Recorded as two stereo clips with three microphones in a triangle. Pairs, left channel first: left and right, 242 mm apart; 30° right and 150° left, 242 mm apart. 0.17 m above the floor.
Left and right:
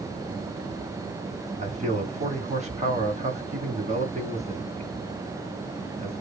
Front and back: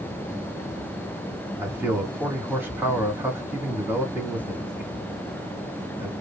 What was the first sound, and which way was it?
A man speaking, 130° right.